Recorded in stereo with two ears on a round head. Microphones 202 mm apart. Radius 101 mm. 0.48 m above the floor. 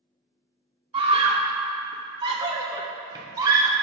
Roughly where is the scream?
Right.